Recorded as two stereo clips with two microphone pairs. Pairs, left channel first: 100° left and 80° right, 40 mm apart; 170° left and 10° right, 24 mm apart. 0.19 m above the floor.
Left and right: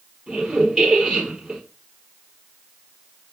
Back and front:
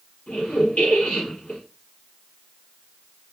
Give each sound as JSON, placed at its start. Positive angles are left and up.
{"t": 0.3, "sound": "a squeak", "azimuth_deg": -160, "distance_m": 3.0}